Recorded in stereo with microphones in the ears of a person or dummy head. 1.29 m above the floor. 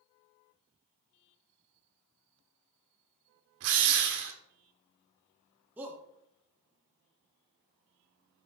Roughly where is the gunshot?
No gunshot in this recording.